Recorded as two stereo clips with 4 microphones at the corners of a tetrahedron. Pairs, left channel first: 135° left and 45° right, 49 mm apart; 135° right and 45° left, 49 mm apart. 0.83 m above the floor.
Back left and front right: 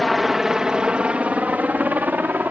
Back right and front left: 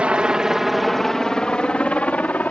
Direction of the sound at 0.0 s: 45° left.